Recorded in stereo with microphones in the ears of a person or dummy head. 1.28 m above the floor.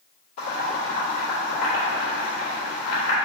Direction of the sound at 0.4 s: 30° left (ahead or behind).